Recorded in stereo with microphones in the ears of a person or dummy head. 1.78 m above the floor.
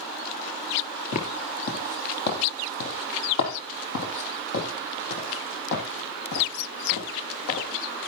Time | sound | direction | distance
1.1 | footsteps | 45° left (ahead or behind) | 2.5 m